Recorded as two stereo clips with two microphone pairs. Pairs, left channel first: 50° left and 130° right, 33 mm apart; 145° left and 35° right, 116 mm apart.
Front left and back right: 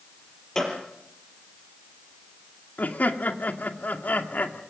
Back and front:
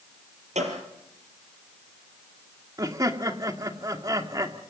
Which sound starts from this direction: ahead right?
A gunshot, at 0.6 s.